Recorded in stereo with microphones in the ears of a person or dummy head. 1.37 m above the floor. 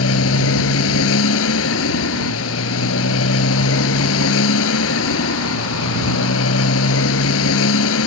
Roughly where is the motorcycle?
Left.